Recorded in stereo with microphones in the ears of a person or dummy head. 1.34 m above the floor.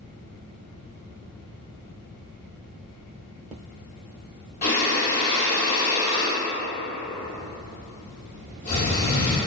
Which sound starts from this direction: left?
Breathing, at 4.6 s.